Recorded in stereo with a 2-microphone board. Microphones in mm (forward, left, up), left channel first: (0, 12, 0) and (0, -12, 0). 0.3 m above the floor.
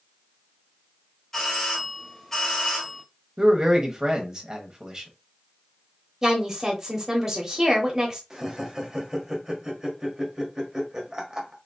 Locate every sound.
1.3 s a doorbell: 20° left (ahead or behind), 1.4 m
3.4 s a man speaking: 30° right (ahead or behind), 1.2 m
6.2 s a woman speaking: 15° right (ahead or behind), 1.1 m
8.3 s laughter: 25° right (ahead or behind), 1.2 m